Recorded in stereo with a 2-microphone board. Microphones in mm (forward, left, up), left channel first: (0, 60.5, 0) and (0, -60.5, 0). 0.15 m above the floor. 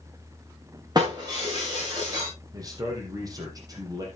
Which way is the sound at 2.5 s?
30° right (ahead or behind).